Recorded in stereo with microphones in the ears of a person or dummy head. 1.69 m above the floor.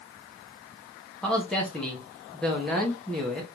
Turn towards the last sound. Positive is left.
turn(degrees=0)  # may be behind; listen again after turning